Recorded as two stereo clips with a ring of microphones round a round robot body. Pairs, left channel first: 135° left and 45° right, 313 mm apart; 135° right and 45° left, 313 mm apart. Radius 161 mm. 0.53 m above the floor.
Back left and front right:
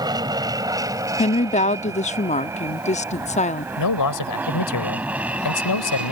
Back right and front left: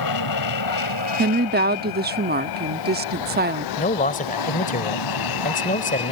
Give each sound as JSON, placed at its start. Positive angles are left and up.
{"t": 0.0, "sound": "an aircraft", "azimuth_deg": -120}
{"t": 1.2, "sound": "a woman speaking", "azimuth_deg": 80}
{"t": 3.8, "sound": "a man speaking", "azimuth_deg": 160}